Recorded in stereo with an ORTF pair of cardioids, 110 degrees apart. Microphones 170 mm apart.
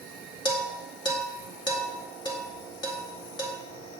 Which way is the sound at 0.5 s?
30° left.